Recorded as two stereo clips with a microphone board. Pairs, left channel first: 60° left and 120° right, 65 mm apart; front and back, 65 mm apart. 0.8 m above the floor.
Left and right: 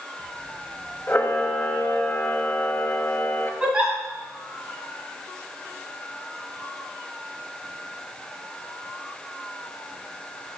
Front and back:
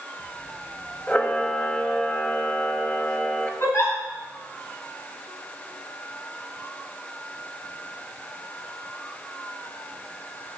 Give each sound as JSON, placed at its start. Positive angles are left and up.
{"t": 1.1, "sound": "a camera shutter", "azimuth_deg": 50, "distance_m": 0.7}
{"t": 3.6, "sound": "a giggle", "azimuth_deg": -45, "distance_m": 2.0}